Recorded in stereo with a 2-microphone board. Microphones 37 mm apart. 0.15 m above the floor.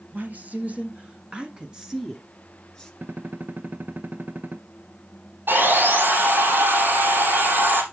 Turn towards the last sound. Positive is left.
turn(degrees=-75)  # may be behind; listen again after turning